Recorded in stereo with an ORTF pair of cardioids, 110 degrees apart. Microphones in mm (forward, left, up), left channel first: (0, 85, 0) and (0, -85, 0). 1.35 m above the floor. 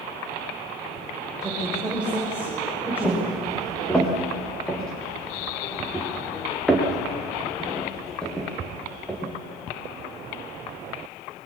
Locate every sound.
1.4 s a woman speaking: 5° right, 6 m; by 3.3 s 10° right, 7 m
3.0 s footsteps: 5° left, 8 m